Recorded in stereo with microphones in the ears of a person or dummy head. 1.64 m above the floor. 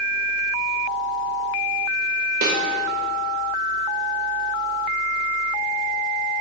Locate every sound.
2.4 s a snare drum: 55° right (ahead or behind), 0.8 m